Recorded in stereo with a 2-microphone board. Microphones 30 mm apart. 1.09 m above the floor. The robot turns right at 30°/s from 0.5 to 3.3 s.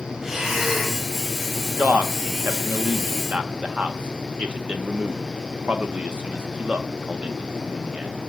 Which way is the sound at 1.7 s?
60° right (ahead or behind).